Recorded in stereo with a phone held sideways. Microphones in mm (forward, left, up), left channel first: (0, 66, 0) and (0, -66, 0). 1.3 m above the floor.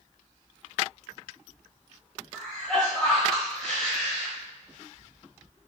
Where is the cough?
5° left (ahead or behind), 1.2 m.